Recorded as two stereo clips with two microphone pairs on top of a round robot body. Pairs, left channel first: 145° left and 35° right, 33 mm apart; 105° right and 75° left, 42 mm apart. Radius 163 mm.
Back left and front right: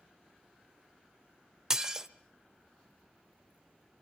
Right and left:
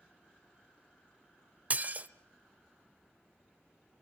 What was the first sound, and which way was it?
Dishes clattering, 35° left.